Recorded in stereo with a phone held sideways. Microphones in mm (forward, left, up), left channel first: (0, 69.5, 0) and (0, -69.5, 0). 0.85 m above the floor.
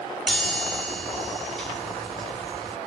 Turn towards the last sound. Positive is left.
turn(degrees=0)  # may be behind; listen again after turning